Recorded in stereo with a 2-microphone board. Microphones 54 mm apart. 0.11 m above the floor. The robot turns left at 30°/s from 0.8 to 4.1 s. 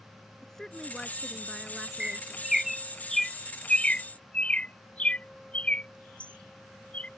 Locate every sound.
0.4 s a woman speaking: 10° left (ahead or behind); by 2.4 s 15° right (ahead or behind)
2.0 s a bird: 15° right (ahead or behind); by 7.1 s 25° left (ahead or behind)